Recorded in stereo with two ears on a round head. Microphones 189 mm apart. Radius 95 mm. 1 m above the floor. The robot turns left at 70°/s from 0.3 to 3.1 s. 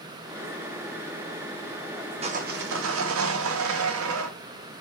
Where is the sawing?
30° right, 0.6 m; by 4.3 s 90° right, 0.6 m.